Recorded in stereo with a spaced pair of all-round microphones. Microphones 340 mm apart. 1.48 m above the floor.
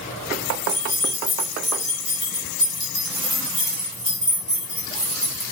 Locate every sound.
0.7 s keys jangling: 15° left (ahead or behind), 1.5 m